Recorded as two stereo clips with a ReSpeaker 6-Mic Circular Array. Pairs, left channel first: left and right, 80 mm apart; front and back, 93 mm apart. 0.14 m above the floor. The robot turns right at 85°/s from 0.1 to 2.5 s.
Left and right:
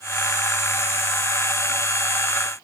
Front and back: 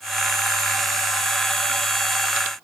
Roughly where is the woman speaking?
I don't hear a woman speaking.